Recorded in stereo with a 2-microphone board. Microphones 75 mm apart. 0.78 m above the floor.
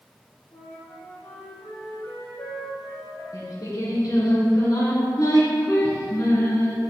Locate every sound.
0.5 s a flute: 65° left (ahead or behind), 2 m
3.3 s singing: 55° left (ahead or behind), 2 m